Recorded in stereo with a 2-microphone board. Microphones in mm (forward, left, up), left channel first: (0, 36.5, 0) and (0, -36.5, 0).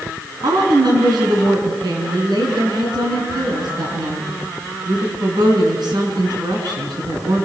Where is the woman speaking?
70° right (ahead or behind), 5 m.